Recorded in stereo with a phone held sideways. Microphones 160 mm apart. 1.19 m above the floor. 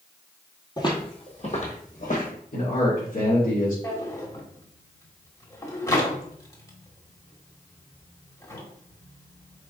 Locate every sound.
0.8 s footsteps: 25° left (ahead or behind), 1.3 m; by 2.3 s 60° left (ahead or behind), 2.5 m
2.5 s a man speaking: 80° left, 2.5 m
3.8 s a drawer: 20° left (ahead or behind), 1.3 m